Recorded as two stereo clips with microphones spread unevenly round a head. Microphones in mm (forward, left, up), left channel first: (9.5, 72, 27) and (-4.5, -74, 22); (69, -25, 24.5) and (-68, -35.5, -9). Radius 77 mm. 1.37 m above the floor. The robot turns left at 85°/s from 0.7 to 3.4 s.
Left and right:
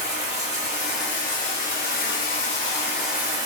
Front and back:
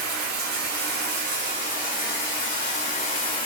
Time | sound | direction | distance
0.0 | running water | 165° right | 1.4 m